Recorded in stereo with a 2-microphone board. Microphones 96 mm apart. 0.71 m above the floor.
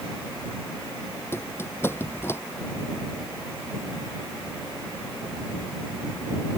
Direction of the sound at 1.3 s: 25° left (ahead or behind).